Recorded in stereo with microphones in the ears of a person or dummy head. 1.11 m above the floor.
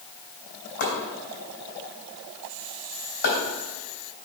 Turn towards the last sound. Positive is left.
turn(degrees=60)  # may be behind; listen again after turning